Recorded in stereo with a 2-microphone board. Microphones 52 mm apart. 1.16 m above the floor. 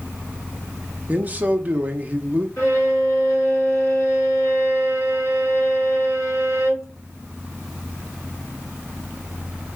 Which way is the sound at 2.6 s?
85° left.